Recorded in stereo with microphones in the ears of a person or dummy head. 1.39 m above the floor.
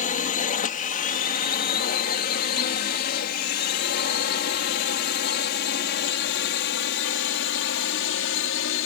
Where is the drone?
40° left (ahead or behind); by 8.9 s 60° left (ahead or behind).